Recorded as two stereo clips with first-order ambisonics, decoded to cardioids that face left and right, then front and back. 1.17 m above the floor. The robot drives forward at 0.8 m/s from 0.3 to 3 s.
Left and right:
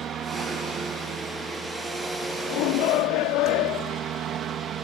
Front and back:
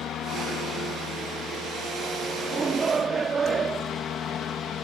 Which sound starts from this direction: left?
A shout, at 2.5 s.